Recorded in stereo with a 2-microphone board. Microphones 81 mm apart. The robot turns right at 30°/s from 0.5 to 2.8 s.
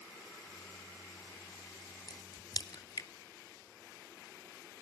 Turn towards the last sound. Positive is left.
turn(degrees=50)  # may be behind; listen again after turning